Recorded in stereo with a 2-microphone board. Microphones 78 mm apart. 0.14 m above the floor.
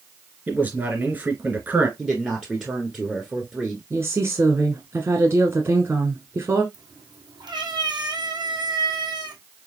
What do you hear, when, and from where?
0.5 s a man speaking: 25° right (ahead or behind), 2.5 m
2.0 s a man speaking: 10° right (ahead or behind), 1.6 m
3.9 s a woman speaking: 35° right (ahead or behind), 1.3 m
6.7 s a cat meowing: 80° right, 1.8 m